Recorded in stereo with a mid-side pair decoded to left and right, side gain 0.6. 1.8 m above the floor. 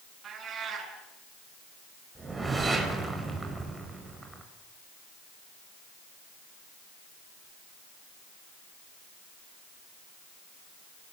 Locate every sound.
0.2 s a cat meowing: 40° right, 8.5 m
2.1 s a whoosh: 15° right, 5.5 m